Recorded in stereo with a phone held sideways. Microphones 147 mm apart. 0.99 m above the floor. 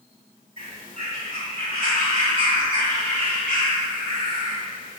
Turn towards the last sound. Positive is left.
turn(degrees=70)  # may be behind; listen again after turning